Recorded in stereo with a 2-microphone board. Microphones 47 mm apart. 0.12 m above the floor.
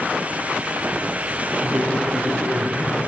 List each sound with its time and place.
1.6 s a man speaking: 45° right (ahead or behind), 3.5 m; by 3.0 s 35° right (ahead or behind), 2.5 m